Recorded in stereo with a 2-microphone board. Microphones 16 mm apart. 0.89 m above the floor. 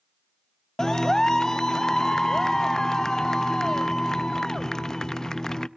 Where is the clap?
35° left (ahead or behind), 0.5 m.